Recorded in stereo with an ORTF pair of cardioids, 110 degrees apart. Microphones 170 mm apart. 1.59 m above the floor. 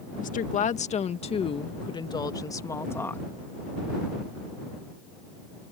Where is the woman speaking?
50° left; by 3.3 s 10° left.